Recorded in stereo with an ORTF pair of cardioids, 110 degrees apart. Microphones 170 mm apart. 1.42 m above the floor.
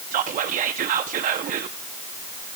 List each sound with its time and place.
0.1 s whispering: 55° right, 0.7 m